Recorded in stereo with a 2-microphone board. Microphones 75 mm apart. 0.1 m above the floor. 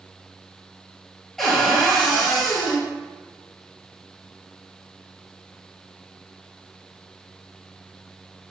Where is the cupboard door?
5° left (ahead or behind), 0.9 m.